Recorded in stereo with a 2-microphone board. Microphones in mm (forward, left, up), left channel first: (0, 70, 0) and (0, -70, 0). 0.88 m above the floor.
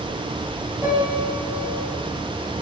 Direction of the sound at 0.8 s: 10° right (ahead or behind).